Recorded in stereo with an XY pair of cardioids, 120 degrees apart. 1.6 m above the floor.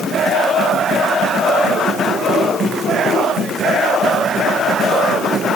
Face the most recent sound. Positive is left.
No sound to turn to.